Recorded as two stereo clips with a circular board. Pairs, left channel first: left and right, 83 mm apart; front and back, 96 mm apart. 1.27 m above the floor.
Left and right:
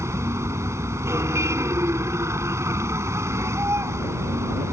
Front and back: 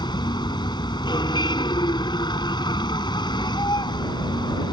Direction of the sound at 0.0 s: 35° right.